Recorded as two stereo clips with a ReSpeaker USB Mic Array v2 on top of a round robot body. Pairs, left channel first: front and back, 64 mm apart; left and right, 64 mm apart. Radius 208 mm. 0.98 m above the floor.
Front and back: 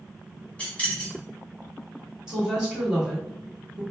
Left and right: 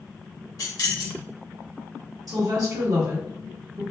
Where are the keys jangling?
70° left, 1.1 m.